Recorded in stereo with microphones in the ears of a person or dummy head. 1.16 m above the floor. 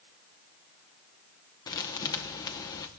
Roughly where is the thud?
Centre.